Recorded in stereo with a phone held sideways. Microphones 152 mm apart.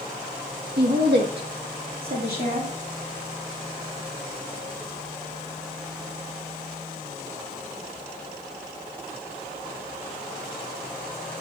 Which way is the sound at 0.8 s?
80° right.